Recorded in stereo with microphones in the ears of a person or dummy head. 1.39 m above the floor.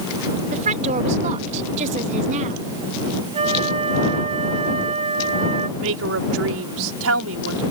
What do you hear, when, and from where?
0.5 s a woman speaking: 35° right (ahead or behind)
3.3 s a flute: 30° right (ahead or behind)
5.8 s a woman speaking: 80° right